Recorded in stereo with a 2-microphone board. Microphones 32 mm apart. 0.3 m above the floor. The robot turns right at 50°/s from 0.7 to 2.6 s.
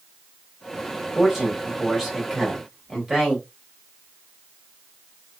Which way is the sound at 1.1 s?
Centre (ahead or behind).